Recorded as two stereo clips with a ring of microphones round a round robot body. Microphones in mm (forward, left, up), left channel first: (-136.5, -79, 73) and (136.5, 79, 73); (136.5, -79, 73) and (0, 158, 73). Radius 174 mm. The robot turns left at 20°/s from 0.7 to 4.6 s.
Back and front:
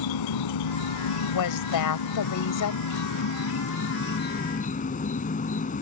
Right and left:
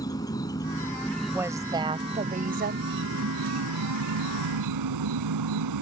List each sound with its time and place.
0.0 s an insect: 140° right; by 5.8 s 145° left
1.3 s a woman speaking: 155° right; by 3.0 s 170° left